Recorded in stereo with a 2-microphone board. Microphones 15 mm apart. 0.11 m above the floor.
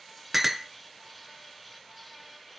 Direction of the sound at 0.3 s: 10° right (ahead or behind).